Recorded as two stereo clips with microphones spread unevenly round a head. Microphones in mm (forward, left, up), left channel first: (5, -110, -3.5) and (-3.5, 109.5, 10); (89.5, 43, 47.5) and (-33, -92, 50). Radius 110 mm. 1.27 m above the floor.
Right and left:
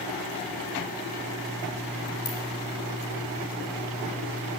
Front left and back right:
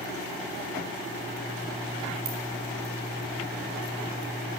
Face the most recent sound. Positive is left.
turn(degrees=-100)